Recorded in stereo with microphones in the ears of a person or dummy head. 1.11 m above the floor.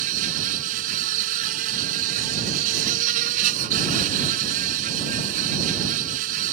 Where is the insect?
45° right (ahead or behind).